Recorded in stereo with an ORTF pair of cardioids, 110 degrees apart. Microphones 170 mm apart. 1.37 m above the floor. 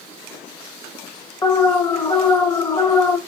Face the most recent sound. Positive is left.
turn(degrees=25)